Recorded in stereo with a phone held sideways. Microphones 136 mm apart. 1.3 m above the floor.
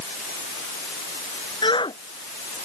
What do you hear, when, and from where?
1.6 s a shout: 35° left (ahead or behind)